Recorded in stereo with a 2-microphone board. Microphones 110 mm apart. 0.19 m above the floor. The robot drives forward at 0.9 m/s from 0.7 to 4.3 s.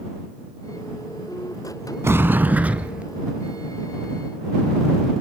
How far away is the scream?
No scream in this recording.